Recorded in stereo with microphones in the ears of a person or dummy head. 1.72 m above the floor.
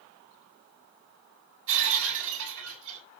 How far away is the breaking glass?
About 6.5 m.